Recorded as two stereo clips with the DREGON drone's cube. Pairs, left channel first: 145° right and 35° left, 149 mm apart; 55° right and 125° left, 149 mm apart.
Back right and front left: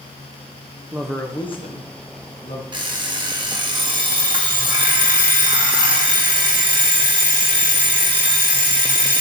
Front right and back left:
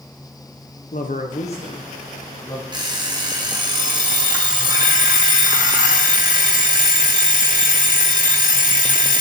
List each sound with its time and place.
0.9 s a man speaking: 40° right, 0.8 m; by 2.6 s 130° right, 2 m
2.7 s an alarm clock: 75° left, 0.9 m